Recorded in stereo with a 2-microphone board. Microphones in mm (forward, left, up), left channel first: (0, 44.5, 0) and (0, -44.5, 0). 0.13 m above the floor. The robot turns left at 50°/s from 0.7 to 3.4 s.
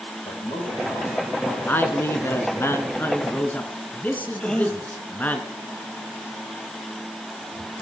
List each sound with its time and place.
0.2 s a man speaking: 60° left, 5 m; by 1.6 s 15° left, 5 m
1.7 s a man speaking: 25° left (ahead or behind), 1.5 m; by 5.4 s 20° left (ahead or behind), 1.5 m
4.4 s a gasp: 10° left (ahead or behind), 1.6 m